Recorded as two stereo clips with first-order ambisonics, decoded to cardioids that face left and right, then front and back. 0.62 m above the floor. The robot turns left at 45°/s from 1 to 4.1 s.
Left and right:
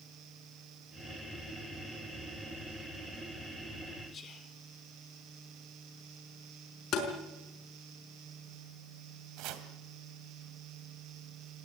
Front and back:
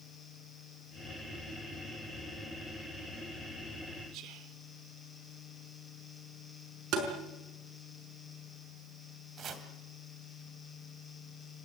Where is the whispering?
150° left, 1.4 m.